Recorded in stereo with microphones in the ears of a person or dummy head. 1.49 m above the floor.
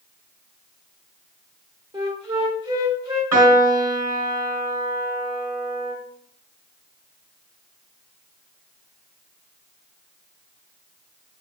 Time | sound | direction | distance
1.9 | a flute | 20° right (ahead or behind) | 1.8 m
3.3 | a piano | 15° right (ahead or behind) | 2 m